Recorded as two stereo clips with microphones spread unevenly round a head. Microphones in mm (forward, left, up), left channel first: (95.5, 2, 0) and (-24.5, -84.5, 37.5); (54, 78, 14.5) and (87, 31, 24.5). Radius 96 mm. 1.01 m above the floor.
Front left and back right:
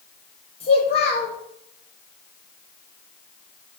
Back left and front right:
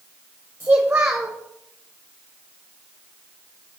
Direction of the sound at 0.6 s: 15° left.